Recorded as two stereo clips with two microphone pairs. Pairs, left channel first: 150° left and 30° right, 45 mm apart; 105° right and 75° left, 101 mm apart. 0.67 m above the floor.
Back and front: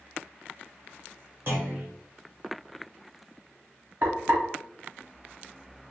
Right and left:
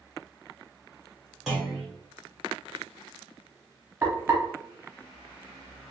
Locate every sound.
1.5 s a clunk: 10° right, 1.4 m
4.0 s frying: 5° left, 1.0 m